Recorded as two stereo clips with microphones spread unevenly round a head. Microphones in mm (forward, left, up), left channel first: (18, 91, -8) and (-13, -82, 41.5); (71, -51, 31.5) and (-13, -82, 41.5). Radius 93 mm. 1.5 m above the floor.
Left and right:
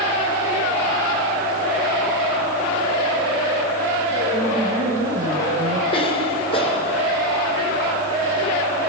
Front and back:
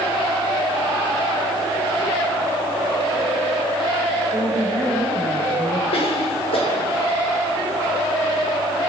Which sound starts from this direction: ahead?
A cough, at 5.9 s.